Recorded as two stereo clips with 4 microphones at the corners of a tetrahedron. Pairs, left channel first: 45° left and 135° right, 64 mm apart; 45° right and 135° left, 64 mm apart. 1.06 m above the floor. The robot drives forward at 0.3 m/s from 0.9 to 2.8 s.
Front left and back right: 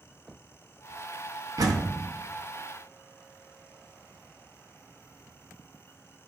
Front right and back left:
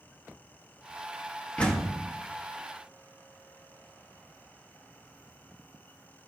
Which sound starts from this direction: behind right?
A door slam, at 1.6 s.